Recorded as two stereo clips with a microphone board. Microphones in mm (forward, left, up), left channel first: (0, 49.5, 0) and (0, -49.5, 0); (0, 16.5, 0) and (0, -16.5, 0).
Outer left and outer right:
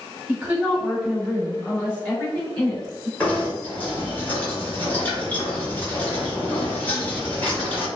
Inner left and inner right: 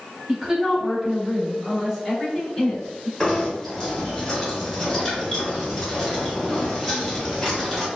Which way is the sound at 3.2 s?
15° left (ahead or behind).